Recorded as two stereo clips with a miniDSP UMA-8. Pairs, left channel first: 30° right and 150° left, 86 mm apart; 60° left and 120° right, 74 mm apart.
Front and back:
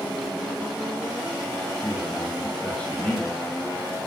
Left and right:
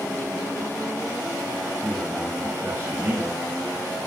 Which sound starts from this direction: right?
A man speaking, at 1.8 s.